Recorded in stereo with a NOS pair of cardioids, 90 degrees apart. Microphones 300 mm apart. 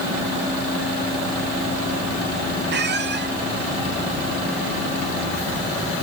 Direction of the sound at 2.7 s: 35° right.